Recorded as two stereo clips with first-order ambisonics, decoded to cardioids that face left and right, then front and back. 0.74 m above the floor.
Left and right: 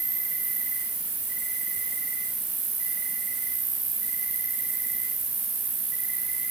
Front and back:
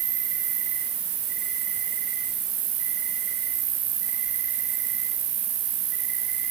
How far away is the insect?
About 6 m.